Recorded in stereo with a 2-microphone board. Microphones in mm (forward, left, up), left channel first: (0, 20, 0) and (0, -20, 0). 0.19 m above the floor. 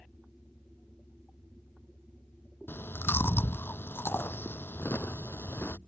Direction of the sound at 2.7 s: 70° left (ahead or behind).